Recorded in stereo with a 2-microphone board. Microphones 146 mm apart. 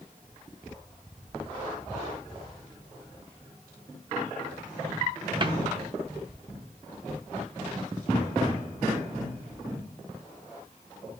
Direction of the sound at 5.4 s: 30° right (ahead or behind).